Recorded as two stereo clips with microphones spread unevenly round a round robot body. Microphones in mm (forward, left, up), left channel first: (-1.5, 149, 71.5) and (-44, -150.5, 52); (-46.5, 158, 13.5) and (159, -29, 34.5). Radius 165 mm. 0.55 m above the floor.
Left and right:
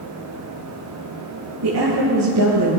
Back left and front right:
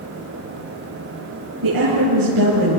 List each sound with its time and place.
1.6 s a woman speaking: 55° right, 8.5 m; by 2.8 s 60° right, 8 m